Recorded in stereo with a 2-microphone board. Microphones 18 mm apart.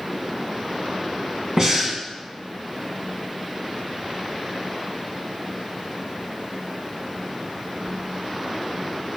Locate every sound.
1.6 s breathing: 40° right (ahead or behind), 2.5 m